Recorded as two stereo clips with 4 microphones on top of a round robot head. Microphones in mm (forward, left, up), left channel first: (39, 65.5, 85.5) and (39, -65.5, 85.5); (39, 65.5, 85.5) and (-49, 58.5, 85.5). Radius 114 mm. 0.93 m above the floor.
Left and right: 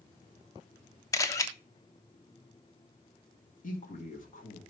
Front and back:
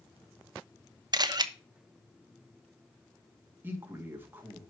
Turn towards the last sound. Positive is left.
turn(degrees=115)